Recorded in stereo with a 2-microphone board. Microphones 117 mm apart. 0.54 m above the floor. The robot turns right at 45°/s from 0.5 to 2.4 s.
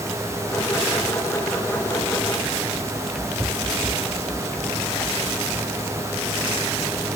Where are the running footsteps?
5° right (ahead or behind); by 7.1 s 40° left (ahead or behind).